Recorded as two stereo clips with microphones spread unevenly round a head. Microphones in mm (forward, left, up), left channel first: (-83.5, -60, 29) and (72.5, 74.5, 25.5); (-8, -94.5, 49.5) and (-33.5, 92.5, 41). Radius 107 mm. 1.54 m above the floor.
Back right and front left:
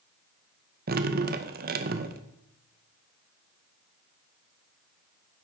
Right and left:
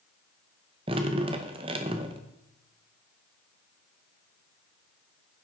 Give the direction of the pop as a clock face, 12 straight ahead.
No pop in this recording.